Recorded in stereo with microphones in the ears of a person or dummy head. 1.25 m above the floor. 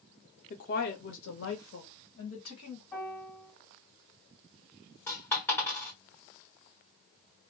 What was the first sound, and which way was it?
A woman speaking, 40° left (ahead or behind).